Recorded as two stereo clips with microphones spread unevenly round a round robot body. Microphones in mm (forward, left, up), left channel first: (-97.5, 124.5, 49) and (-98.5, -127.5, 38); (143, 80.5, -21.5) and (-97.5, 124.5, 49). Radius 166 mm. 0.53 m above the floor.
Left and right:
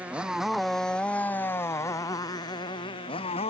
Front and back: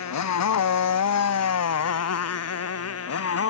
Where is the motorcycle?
5° right; by 3.5 s 15° left.